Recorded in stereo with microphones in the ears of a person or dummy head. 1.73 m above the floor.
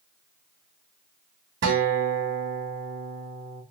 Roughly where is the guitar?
Right.